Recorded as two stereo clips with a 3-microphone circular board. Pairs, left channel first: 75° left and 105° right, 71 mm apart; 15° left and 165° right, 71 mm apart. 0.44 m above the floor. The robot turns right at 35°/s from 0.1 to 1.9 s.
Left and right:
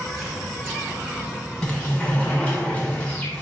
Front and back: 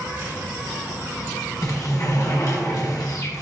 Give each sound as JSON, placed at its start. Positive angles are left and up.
{"t": 0.0, "sound": "an insect", "azimuth_deg": 165, "distance_m": 2.0}
{"t": 1.6, "sound": "a sliding door", "azimuth_deg": -5, "distance_m": 1.1}